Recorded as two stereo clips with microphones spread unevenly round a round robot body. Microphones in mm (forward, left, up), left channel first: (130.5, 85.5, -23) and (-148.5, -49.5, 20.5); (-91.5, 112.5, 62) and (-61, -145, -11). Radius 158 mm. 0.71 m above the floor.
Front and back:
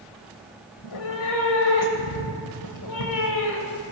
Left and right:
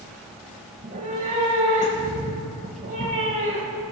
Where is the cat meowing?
10° right, 1.0 m.